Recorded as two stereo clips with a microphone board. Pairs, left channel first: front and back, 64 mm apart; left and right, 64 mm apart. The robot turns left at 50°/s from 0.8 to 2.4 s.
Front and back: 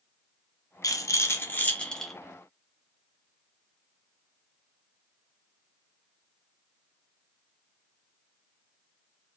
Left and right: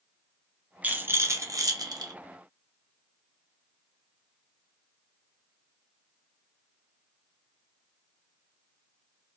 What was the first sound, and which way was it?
A rattle, 25° right.